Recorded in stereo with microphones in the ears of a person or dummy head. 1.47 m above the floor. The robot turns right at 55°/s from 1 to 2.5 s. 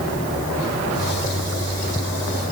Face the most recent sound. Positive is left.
No sound to turn to.